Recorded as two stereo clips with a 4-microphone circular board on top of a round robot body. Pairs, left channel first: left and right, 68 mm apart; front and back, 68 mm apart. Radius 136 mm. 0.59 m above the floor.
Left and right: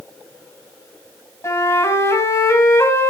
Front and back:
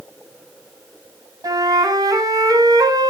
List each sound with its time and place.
1.4 s a flute: 145° left, 2 m